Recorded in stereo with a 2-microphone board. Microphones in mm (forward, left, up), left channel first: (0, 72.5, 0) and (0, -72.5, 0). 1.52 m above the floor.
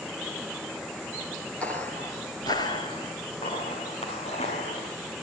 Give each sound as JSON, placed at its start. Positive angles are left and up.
{"t": 1.6, "sound": "footsteps", "side_deg": 10, "distance_m": 1.6}